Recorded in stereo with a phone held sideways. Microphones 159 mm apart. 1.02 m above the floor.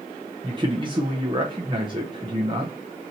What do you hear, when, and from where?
0.4 s a man speaking: 30° right (ahead or behind), 0.7 m